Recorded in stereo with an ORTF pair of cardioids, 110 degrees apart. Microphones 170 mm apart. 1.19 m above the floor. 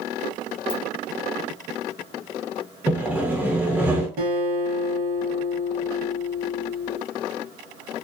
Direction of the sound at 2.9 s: 10° right.